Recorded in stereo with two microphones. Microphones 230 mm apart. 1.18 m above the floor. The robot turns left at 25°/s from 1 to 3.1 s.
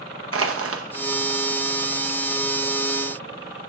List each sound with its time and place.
0.3 s crushing: 75° right (ahead or behind), 0.7 m